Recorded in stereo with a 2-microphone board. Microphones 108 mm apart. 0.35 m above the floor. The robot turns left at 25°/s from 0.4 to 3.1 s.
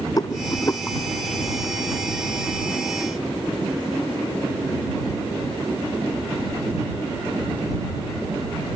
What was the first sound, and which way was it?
A rattle, 35° left (ahead or behind).